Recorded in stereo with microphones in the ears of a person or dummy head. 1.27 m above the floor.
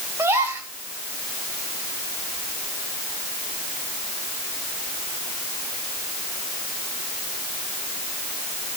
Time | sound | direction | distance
0.2 | a gasp | 10° right (ahead or behind) | 4 m